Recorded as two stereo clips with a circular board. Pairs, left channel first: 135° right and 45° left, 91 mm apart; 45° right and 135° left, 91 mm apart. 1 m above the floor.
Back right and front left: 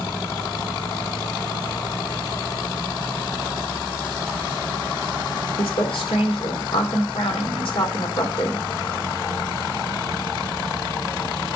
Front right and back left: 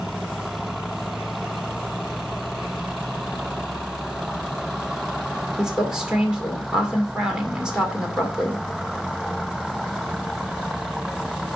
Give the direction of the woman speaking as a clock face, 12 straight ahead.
5 o'clock.